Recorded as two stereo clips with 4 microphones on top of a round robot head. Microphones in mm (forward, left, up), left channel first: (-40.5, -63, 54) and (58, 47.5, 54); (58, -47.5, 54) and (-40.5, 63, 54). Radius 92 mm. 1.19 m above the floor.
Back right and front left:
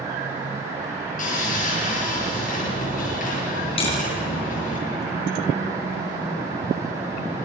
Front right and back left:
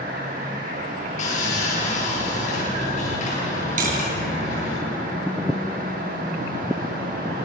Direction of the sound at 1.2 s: 95° right.